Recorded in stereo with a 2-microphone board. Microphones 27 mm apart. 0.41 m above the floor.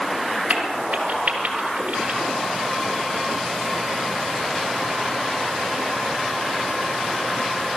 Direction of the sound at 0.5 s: 70° right (ahead or behind).